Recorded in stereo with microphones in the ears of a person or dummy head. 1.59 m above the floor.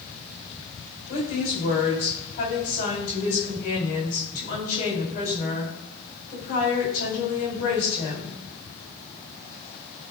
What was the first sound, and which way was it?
A woman speaking, 40° left (ahead or behind).